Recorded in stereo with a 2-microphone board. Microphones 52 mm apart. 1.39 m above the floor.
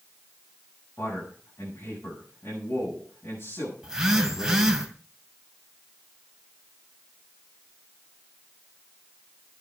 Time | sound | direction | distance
1.0 | a man speaking | 55° left (ahead or behind) | 8.5 m
3.8 | a phone buzzing | 10° right (ahead or behind) | 2 m